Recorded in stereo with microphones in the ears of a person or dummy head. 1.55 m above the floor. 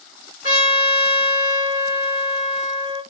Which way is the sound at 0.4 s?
45° left (ahead or behind).